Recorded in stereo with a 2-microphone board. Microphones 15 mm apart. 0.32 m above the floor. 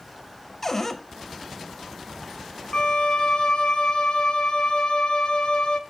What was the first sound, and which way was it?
A cupboard door, 20° left (ahead or behind).